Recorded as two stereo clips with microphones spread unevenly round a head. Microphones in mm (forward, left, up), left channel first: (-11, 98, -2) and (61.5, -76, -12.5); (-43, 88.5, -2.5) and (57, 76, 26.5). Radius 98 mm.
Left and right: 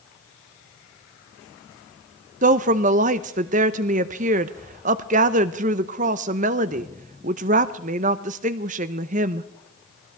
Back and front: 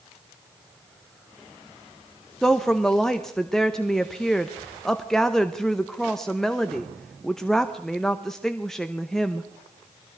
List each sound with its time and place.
2.4 s a woman speaking: 110° right, 0.6 m